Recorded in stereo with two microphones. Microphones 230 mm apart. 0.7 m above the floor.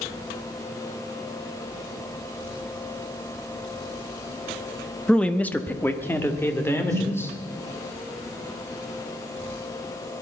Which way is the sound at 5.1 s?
5° left (ahead or behind).